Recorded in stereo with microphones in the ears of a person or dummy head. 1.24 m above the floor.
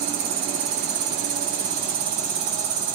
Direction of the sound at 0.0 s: 35° right (ahead or behind).